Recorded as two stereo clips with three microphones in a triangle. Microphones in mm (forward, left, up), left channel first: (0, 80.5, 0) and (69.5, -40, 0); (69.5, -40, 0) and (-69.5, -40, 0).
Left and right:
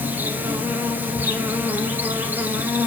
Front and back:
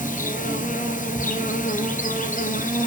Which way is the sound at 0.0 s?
15° left.